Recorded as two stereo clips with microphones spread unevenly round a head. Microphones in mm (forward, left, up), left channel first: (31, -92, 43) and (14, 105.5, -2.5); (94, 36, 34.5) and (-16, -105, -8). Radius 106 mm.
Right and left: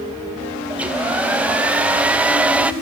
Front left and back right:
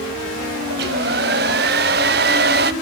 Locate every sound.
0.7 s a hair dryer: straight behind, 0.6 m